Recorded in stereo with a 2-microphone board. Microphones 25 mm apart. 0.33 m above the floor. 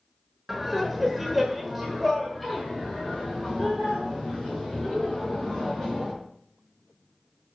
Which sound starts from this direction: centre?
Laughter, at 0.5 s.